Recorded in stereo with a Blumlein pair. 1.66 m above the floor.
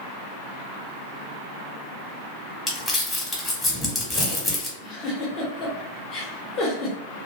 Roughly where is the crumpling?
Ahead.